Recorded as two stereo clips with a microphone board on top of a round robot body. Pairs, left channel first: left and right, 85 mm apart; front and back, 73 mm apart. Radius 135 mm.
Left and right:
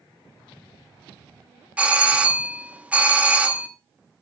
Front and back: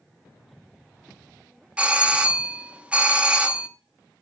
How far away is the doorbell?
About 1.3 m.